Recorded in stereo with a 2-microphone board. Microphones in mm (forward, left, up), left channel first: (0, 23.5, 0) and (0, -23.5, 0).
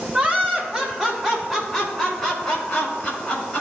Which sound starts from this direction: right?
Laughter, at 0.1 s.